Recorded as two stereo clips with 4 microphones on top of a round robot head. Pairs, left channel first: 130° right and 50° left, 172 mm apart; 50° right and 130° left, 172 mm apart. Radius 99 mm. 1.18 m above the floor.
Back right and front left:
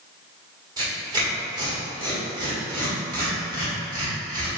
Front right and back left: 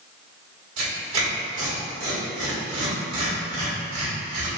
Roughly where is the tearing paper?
Behind left.